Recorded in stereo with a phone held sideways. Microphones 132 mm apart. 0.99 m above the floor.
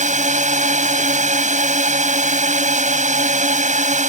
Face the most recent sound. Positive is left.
turn(degrees=-70)  # may be behind; listen again after turning